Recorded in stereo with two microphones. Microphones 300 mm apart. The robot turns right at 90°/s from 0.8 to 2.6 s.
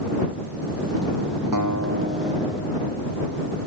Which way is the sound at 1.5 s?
80° right.